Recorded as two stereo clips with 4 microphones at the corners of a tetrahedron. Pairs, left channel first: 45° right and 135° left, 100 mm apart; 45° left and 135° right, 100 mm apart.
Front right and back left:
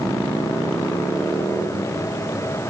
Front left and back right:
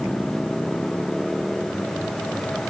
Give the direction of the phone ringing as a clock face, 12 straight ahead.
No phone ringing in this recording.